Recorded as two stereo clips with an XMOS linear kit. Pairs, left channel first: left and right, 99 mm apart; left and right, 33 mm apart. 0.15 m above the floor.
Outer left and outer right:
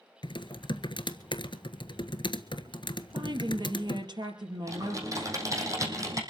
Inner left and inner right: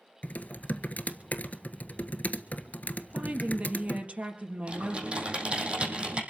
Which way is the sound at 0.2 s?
55° left (ahead or behind).